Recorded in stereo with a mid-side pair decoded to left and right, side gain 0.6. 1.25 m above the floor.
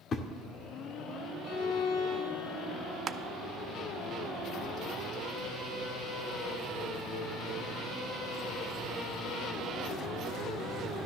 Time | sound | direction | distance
0.1 | a thud | 40° left | 1.9 m
1.4 | a violin | 70° left | 3.5 m
3.1 | crushing | 40° right | 0.8 m